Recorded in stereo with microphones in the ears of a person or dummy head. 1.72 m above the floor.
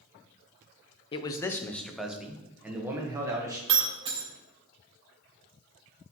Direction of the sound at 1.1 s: 30° left (ahead or behind).